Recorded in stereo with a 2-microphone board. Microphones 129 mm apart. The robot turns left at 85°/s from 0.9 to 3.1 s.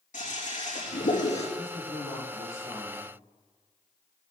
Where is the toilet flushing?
100° left, 5 m; by 1.5 s 55° left, 5 m.